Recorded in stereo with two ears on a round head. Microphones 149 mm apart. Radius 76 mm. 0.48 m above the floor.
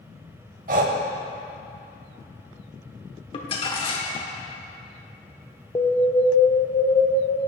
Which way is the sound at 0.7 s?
50° right (ahead or behind).